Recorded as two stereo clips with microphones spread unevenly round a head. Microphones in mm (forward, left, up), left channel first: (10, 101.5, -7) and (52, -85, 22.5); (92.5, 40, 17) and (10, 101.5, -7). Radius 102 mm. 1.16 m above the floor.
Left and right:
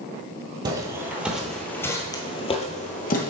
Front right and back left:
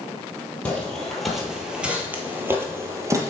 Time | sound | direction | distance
0.7 | footsteps | 70° right | 1.2 m